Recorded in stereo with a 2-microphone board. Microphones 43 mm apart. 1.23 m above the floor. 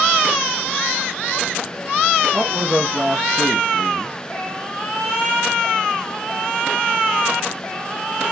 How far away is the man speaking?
About 0.7 m.